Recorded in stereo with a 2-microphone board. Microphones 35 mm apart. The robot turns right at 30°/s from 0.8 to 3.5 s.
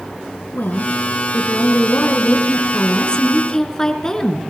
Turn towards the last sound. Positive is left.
turn(degrees=160)